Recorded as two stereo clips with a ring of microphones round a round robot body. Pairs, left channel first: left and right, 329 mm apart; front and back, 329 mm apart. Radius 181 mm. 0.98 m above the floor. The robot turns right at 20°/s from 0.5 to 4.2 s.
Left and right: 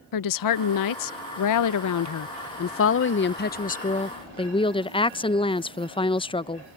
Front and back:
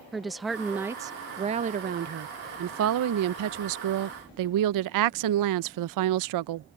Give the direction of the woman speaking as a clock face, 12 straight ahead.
9 o'clock.